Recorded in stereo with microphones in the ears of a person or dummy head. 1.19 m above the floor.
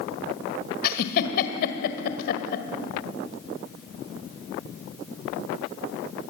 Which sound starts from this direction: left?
A giggle, at 0.8 s.